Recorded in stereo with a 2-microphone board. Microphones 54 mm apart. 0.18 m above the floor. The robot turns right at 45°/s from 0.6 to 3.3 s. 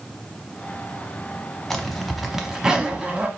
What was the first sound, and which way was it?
A zipper, 5° left (ahead or behind).